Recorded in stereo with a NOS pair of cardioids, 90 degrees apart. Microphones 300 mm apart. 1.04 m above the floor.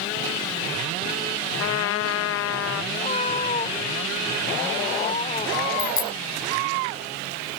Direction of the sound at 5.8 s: 45° left.